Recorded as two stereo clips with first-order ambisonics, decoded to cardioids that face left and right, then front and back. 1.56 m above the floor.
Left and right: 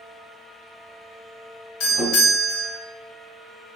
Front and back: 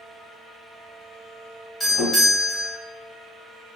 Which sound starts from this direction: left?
A doorbell, at 1.8 s.